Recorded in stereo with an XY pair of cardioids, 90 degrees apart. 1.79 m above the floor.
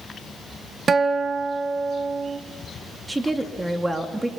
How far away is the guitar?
About 1.6 m.